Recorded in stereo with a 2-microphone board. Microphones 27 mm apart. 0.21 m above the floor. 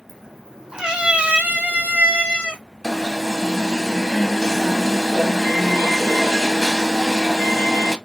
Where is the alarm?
10° left (ahead or behind), 0.7 m.